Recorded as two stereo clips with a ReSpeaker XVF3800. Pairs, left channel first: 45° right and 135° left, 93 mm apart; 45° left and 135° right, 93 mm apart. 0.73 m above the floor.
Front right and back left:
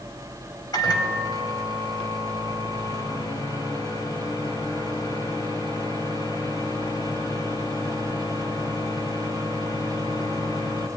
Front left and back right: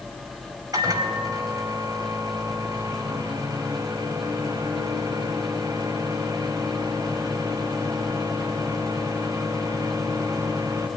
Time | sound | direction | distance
0.7 | a microwave | 90° right | 3 m